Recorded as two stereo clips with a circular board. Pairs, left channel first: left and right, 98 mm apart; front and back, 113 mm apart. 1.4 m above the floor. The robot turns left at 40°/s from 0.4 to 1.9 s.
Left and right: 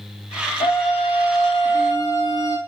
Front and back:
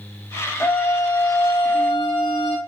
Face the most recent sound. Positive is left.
turn(degrees=40)